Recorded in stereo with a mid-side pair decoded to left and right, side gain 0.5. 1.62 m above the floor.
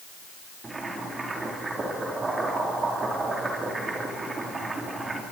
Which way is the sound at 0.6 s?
25° right.